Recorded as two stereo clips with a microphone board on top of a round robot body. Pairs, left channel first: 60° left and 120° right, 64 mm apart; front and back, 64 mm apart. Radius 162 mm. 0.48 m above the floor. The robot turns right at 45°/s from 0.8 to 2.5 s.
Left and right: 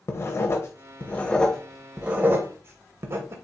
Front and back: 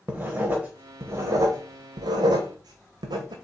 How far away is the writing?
About 0.6 m.